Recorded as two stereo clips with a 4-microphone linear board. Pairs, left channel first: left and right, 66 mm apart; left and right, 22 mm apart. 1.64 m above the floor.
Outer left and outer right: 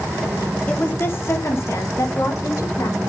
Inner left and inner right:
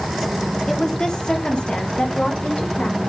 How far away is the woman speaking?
About 1.4 m.